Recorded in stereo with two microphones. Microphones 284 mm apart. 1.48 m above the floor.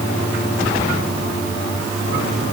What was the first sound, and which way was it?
Only background noise.